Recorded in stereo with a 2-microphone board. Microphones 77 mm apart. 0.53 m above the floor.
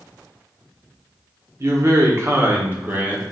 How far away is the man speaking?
About 0.9 m.